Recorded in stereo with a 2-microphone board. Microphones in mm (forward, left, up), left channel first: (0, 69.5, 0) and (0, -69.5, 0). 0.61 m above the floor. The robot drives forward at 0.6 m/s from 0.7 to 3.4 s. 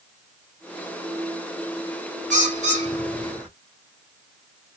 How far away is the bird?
About 1.9 m.